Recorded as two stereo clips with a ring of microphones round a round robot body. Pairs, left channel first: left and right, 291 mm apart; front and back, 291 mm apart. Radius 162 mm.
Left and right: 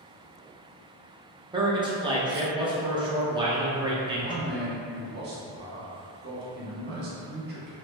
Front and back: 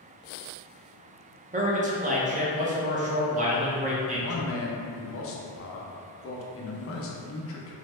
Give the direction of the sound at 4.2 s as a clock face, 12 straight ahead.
1 o'clock.